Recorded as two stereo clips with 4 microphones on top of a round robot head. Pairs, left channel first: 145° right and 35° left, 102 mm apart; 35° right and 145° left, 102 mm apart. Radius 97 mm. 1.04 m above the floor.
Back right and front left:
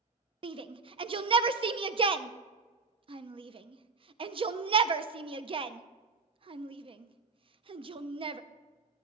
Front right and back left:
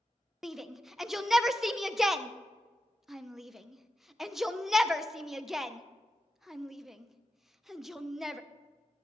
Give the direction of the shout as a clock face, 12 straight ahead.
10 o'clock.